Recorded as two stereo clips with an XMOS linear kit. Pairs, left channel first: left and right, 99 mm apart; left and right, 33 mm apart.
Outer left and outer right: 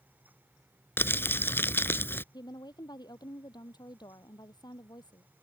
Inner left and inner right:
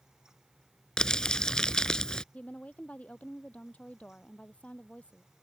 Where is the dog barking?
I don't hear a dog barking.